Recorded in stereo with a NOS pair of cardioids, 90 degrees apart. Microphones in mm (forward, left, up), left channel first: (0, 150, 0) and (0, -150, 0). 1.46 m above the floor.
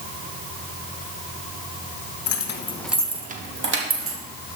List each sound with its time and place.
2.3 s keys jangling: 60° left, 1.1 m; by 4.2 s 45° right, 2.5 m